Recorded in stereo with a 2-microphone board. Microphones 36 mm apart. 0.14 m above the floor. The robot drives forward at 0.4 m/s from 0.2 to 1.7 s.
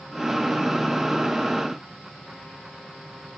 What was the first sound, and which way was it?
Only background noise.